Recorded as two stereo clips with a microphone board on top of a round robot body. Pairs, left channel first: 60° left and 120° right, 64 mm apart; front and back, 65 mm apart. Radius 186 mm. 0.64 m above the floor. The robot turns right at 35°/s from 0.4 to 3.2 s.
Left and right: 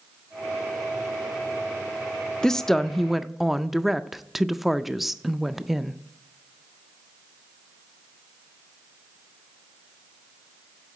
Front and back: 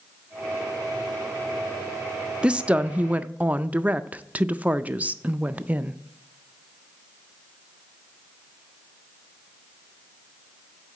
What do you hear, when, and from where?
2.4 s a woman speaking: 130° left, 0.6 m; by 6.0 s 155° left, 0.6 m